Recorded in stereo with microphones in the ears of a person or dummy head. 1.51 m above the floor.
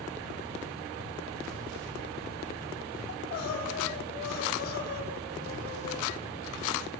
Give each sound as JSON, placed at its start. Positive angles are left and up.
{"t": 3.1, "sound": "crying", "side_deg": 60, "distance_m": 4.5}